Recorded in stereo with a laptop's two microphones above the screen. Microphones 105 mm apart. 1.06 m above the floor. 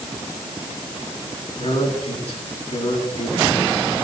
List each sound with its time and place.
1.6 s a man speaking: 80° left, 8.5 m